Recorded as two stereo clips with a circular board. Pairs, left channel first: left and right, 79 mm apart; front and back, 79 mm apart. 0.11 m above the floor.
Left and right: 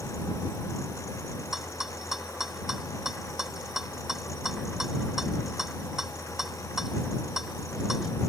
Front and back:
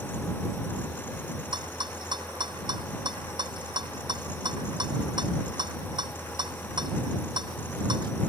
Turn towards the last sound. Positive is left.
turn(degrees=-175)